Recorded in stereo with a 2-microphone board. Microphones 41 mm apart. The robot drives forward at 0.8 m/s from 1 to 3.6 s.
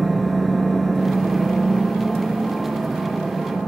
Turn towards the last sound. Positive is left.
turn(degrees=0)  # may be behind; listen again after turning